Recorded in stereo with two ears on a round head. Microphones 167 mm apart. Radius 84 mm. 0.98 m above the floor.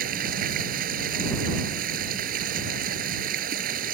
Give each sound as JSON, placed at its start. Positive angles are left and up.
{"t": 0.0, "sound": "running water", "side_deg": -50}